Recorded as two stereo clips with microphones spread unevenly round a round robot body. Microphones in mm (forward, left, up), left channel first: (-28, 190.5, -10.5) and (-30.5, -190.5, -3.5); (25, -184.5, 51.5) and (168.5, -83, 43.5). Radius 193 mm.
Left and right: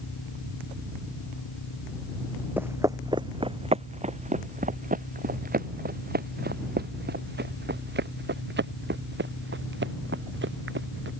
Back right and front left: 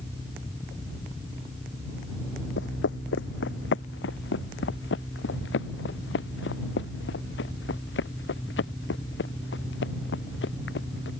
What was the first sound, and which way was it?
Footsteps, 175° right.